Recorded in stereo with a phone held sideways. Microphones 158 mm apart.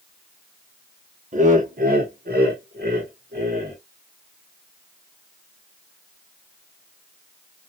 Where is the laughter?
50° right (ahead or behind), 1.0 m; by 3.8 s 85° right, 1.8 m.